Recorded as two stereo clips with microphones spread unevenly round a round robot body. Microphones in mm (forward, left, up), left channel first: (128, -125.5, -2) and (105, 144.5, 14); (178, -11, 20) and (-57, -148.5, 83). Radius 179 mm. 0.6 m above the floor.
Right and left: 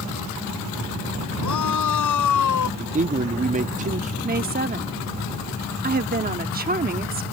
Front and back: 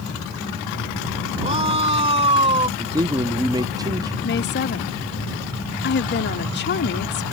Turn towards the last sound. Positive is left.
turn(degrees=45)